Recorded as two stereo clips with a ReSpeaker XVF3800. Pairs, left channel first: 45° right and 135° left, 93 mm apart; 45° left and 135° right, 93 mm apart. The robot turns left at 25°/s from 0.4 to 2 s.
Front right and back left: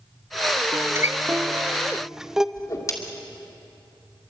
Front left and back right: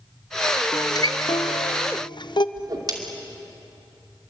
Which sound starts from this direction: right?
A whoosh, at 2.5 s.